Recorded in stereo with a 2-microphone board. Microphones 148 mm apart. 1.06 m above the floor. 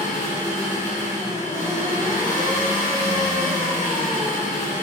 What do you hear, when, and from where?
0.0 s an engine running: 55° left (ahead or behind), 0.8 m